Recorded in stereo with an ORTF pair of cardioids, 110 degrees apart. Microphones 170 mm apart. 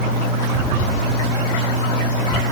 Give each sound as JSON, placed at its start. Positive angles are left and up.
{"t": 0.5, "sound": "an explosion", "azimuth_deg": -45}